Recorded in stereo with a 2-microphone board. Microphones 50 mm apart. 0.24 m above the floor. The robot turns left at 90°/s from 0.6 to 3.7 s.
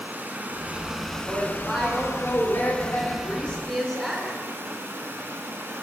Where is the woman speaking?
130° right, 3 m; by 4.3 s 10° left, 3 m.